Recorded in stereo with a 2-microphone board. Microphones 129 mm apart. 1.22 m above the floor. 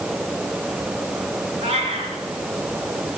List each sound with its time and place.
1.6 s a cat meowing: 50° right (ahead or behind), 5 m